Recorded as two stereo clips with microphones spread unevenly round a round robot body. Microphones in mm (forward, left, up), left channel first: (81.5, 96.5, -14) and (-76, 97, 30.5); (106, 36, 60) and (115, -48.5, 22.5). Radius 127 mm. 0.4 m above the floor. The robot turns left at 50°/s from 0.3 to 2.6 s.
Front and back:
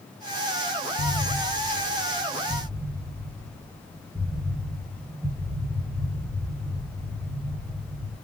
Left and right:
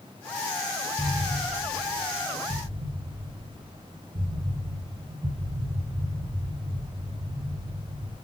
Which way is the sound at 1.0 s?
25° right.